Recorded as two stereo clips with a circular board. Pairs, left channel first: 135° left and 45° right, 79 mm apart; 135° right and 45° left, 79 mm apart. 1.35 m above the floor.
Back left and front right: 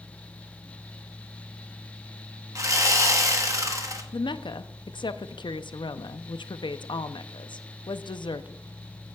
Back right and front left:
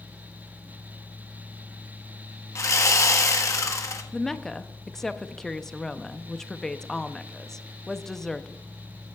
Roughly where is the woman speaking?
Behind left.